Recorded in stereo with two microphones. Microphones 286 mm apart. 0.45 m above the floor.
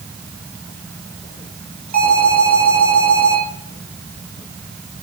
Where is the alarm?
85° right, 7.5 m.